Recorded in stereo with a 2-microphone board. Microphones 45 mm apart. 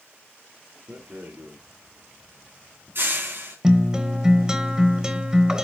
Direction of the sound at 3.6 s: 15° right (ahead or behind).